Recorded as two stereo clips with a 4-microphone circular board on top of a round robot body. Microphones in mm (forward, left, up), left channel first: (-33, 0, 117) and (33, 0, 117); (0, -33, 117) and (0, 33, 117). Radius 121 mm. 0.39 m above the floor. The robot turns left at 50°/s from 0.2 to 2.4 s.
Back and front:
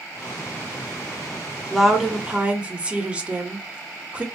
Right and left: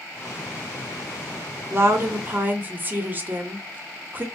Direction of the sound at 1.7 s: 90° left.